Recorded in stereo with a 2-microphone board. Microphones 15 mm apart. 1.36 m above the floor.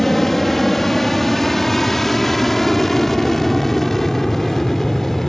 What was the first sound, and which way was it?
An aircraft, 10° left (ahead or behind).